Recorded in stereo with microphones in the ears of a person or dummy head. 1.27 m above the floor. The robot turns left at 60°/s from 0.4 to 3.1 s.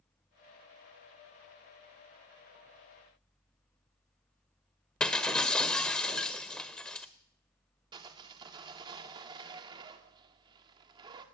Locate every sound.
5.0 s breaking glass: 5° left (ahead or behind), 1.5 m
7.9 s sawing: 25° right (ahead or behind), 2 m